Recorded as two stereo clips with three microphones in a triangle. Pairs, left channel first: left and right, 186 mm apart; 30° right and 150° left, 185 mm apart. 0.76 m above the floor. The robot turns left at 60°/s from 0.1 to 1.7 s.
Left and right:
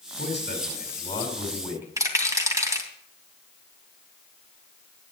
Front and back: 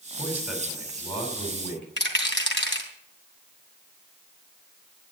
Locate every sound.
0.2 s a man speaking: 80° left, 5.5 m; by 1.9 s 10° right, 5.5 m
2.0 s a rattle: 15° right, 2.5 m